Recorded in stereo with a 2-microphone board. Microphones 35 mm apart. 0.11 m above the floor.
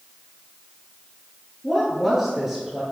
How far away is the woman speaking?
About 1.7 m.